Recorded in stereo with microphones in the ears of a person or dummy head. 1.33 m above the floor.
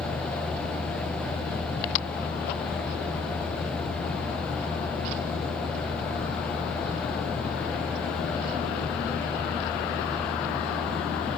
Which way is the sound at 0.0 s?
5° left (ahead or behind).